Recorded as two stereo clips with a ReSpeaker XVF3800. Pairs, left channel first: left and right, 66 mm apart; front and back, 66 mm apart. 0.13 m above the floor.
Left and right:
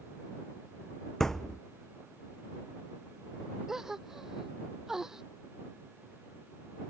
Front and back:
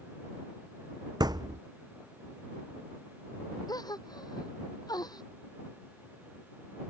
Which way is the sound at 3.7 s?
5° right.